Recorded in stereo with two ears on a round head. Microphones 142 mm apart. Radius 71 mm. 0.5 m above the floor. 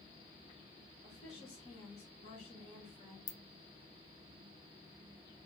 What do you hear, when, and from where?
1.0 s a woman speaking: 40° left (ahead or behind), 1.3 m
3.3 s a ringtone: 30° left (ahead or behind), 0.5 m